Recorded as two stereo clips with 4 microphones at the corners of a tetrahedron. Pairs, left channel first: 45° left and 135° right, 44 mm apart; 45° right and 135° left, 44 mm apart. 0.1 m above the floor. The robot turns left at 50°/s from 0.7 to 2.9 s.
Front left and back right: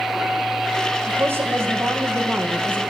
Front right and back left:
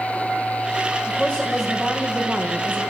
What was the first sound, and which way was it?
A woman speaking, 100° right.